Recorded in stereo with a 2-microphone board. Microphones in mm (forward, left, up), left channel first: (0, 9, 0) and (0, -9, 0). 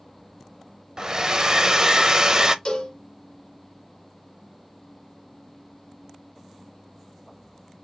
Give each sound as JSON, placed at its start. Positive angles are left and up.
{"t": 1.0, "sound": "a hair dryer", "side_deg": -40, "distance_m": 0.6}
{"t": 2.6, "sound": "a cowbell", "side_deg": 60, "distance_m": 1.4}